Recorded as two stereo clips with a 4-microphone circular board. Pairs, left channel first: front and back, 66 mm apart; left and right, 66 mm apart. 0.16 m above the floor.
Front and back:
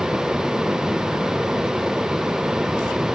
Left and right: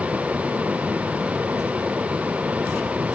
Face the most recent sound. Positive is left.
No sound to turn to.